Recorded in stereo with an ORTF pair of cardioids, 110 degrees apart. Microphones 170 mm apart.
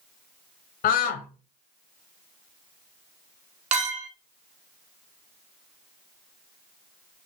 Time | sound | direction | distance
0.8 | a scream | 65° left | 0.7 m
3.7 | a clink | 45° right | 0.9 m